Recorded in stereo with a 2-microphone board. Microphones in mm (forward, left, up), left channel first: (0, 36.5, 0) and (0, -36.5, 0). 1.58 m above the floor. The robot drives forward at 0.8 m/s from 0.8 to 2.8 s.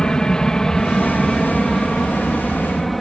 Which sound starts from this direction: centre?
An aircraft, at 0.0 s.